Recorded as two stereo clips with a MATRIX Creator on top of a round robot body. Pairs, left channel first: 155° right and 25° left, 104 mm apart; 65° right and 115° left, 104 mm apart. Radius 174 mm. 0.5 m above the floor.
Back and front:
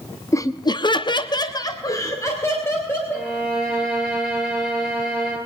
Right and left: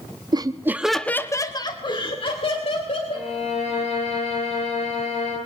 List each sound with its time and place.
0.3 s laughter: 150° left, 1.3 m; by 3.3 s 90° right, 4 m
3.1 s a violin: 75° right, 9.5 m